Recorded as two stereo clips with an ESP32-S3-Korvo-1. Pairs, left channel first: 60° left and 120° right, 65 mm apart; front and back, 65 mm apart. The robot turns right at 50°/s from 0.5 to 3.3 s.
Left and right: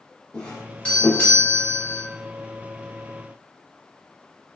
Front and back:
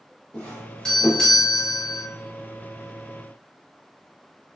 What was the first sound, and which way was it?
A doorbell, 35° left.